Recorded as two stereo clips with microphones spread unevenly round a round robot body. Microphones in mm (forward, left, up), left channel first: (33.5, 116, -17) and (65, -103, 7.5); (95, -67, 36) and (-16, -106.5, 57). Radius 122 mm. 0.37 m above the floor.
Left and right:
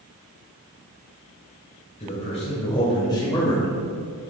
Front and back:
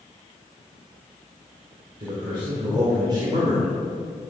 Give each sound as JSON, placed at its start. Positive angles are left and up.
{"t": 2.0, "sound": "a man speaking", "azimuth_deg": 145, "distance_m": 2.0}